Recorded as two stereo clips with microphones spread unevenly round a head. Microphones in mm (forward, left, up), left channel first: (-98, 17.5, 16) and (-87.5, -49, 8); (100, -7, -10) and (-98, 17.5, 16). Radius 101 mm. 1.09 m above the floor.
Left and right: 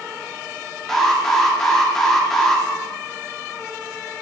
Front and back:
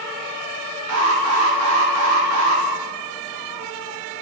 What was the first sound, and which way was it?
An alarm, straight behind.